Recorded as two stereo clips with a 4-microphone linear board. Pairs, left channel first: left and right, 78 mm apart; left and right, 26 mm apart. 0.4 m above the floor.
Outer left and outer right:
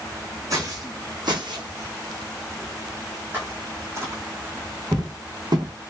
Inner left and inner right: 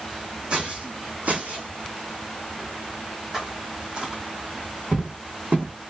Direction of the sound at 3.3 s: 20° right (ahead or behind).